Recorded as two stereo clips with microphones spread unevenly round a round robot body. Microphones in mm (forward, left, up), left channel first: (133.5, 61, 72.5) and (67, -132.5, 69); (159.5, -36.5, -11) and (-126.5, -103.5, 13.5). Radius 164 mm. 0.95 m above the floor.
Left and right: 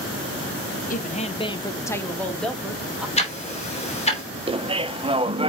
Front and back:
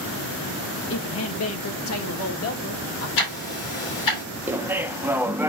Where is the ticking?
10° left, 2.5 m.